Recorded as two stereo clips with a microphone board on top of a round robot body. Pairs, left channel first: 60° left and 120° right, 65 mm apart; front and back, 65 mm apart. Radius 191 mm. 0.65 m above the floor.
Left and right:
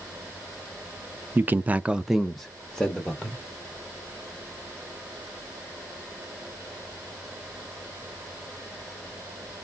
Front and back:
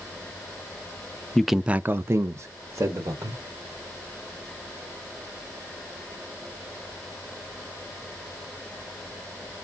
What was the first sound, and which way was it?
A man speaking, 80° right.